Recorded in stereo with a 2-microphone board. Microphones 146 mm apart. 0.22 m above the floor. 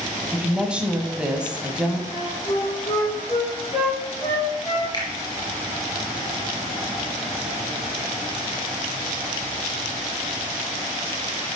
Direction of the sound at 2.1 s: 35° left (ahead or behind).